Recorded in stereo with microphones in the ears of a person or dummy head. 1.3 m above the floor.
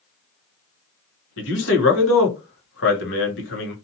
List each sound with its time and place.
1.4 s a man speaking: 75° left (ahead or behind), 1.0 m